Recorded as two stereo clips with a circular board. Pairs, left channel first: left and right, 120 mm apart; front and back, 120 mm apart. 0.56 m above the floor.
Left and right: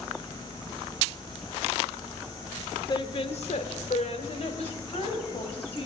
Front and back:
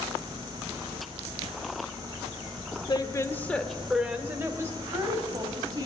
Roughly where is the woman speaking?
Ahead left.